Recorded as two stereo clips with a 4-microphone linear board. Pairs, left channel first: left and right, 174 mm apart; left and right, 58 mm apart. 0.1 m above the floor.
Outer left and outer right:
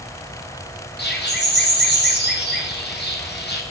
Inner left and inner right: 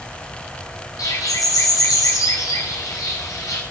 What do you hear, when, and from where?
1.0 s a bird: 75° left (ahead or behind), 3.5 m